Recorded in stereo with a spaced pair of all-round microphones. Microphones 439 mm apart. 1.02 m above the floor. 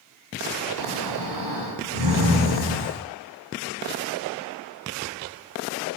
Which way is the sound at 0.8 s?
55° left (ahead or behind).